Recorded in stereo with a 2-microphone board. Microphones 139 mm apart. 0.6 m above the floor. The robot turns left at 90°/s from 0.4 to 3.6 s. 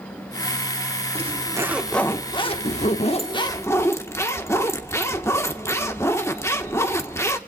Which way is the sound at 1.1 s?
115° right.